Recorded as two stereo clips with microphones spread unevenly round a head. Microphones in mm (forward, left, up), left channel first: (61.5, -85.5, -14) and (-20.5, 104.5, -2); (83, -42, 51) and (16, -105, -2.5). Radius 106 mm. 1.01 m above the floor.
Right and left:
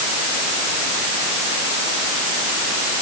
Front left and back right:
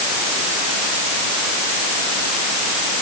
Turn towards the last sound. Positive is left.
No sound to turn to.